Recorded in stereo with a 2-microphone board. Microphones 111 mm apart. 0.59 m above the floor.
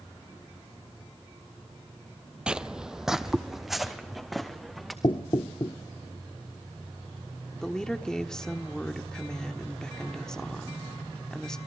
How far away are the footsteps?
About 0.6 m.